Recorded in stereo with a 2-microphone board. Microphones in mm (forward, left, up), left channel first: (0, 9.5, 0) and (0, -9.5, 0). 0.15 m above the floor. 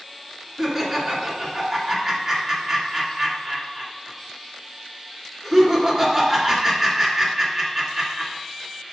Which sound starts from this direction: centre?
Laughter, at 0.6 s.